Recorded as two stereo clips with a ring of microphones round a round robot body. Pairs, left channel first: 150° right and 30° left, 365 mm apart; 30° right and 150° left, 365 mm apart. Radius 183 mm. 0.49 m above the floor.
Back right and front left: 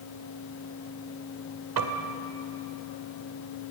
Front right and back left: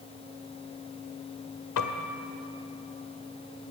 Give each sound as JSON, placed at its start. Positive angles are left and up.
{"t": 1.8, "sound": "a piano", "azimuth_deg": 5, "distance_m": 1.7}